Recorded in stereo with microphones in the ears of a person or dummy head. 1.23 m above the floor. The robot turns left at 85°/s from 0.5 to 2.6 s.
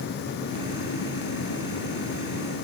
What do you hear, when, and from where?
Only background noise.